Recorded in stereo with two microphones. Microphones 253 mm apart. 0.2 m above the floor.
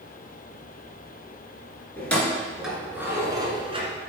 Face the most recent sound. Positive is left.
turn(degrees=-25)  # may be behind; listen again after turning